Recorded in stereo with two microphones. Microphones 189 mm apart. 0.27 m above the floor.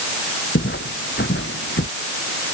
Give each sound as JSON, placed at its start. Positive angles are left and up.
{"t": 0.6, "sound": "footsteps", "side_deg": 70}